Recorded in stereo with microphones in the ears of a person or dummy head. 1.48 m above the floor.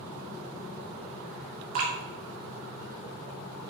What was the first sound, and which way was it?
Dripping, 50° right (ahead or behind).